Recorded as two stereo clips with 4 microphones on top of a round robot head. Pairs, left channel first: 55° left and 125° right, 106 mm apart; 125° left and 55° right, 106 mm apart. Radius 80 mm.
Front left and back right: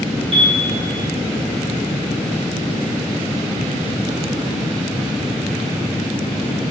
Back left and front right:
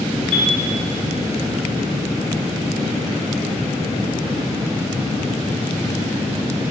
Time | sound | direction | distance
0.3 | a piano | 160° right | 2.5 m